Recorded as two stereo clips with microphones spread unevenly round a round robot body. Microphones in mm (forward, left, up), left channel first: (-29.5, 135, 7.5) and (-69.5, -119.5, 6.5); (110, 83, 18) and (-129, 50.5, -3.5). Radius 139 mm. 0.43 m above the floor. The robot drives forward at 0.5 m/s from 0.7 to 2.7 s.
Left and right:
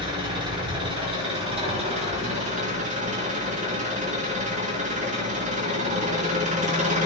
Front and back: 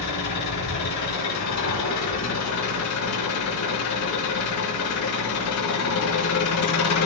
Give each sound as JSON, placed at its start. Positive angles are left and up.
{"t": 0.0, "sound": "an engine running", "azimuth_deg": -25, "distance_m": 4.0}